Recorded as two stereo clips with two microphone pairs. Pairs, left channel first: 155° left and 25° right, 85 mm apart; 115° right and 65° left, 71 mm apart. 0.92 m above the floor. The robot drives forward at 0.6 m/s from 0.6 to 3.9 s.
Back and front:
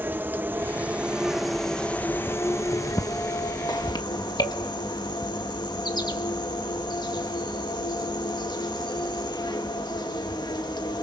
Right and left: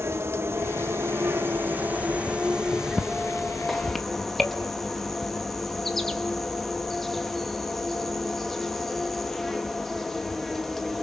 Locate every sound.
0.0 s an insect: 35° left, 1.2 m; by 11.0 s 160° left, 1.6 m